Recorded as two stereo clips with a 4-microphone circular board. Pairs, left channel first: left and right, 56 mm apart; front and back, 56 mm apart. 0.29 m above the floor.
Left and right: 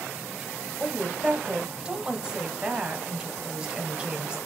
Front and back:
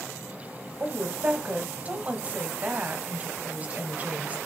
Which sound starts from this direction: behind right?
A woman speaking, at 0.8 s.